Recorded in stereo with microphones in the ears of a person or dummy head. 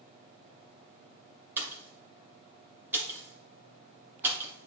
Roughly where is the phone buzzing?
No phone buzzing in this recording.